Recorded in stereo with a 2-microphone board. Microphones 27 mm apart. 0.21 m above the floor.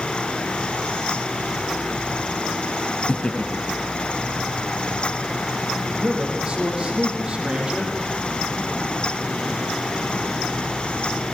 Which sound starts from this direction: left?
Laughter, at 3.1 s.